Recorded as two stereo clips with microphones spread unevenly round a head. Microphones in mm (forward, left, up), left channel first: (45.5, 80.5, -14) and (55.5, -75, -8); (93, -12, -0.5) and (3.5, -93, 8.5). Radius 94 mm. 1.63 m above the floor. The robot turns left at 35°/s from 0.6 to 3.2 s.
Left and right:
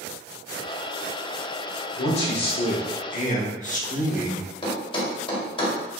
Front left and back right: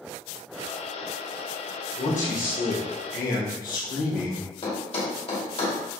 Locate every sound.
2.0 s a man speaking: 100° left, 1.3 m; by 4.5 s 55° left, 1.3 m
4.6 s a thud: 50° left, 1.7 m